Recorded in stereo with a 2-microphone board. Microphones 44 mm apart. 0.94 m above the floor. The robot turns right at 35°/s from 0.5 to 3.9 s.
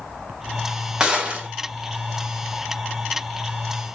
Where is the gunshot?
15° right (ahead or behind), 1.6 m; by 1.5 s 35° right (ahead or behind), 1.6 m.